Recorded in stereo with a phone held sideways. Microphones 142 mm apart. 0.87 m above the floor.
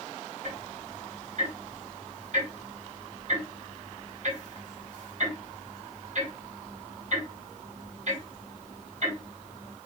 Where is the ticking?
55° right (ahead or behind), 1.5 m.